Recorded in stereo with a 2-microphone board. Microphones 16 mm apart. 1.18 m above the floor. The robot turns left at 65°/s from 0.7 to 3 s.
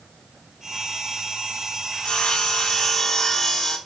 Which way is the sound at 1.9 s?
95° left.